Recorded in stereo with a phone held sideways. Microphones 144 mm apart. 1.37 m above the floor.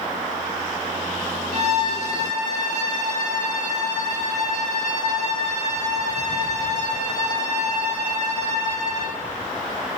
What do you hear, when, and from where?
1.5 s a violin: 55° right (ahead or behind), 1.3 m